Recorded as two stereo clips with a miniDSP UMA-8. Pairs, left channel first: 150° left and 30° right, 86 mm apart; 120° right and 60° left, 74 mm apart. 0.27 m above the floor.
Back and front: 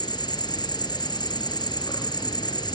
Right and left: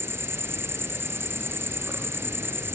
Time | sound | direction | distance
0.0 | an insect | 120° left | 1.4 m